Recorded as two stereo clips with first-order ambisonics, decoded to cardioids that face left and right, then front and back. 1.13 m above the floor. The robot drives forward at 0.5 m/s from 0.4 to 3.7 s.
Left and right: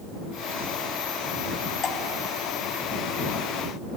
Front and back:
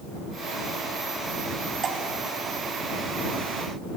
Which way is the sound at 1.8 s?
135° left.